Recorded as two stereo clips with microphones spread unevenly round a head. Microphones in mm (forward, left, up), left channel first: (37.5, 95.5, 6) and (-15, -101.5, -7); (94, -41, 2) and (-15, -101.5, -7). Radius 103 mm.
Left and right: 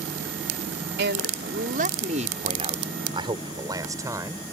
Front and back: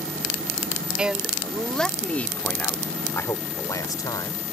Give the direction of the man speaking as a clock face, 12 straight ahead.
2 o'clock.